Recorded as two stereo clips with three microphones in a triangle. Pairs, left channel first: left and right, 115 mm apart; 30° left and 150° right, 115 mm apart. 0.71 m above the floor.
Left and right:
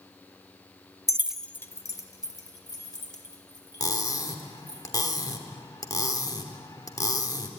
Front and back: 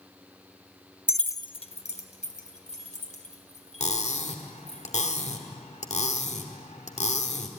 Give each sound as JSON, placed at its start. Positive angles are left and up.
{"t": 1.1, "sound": "keys jangling", "azimuth_deg": -80, "distance_m": 0.5}
{"t": 3.8, "sound": "cutlery clinking", "azimuth_deg": 35, "distance_m": 1.3}